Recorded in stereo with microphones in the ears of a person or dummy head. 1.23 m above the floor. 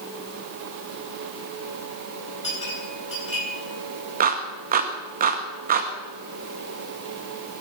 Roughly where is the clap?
Right.